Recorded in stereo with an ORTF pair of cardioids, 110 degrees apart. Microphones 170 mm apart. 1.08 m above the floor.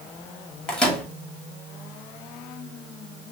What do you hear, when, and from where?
0.7 s a microwave: 5° left, 2 m